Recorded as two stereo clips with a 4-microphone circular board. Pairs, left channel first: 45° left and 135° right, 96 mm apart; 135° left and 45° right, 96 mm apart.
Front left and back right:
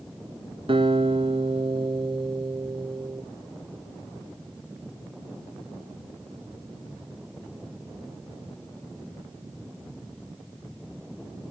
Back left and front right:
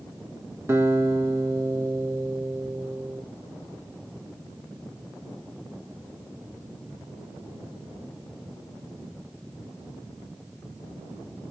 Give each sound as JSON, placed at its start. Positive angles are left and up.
{"t": 0.7, "sound": "a guitar", "azimuth_deg": -110, "distance_m": 2.5}